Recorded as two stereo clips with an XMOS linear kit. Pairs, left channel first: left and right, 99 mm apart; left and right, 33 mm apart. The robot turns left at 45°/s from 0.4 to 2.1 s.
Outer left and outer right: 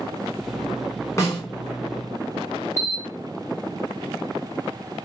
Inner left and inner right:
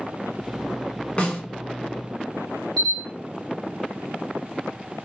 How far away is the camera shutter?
About 1.4 m.